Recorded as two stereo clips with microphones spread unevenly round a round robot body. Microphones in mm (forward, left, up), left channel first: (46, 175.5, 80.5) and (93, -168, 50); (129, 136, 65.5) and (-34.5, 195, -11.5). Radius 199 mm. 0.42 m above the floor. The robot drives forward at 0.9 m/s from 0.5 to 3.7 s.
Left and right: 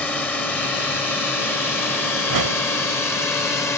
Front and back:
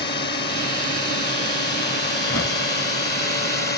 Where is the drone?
10° left; by 3.8 s 15° left.